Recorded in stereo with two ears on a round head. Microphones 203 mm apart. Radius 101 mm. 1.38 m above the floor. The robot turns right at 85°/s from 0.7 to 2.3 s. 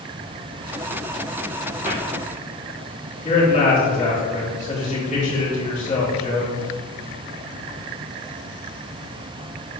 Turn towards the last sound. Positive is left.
turn(degrees=35)  # may be behind; listen again after turning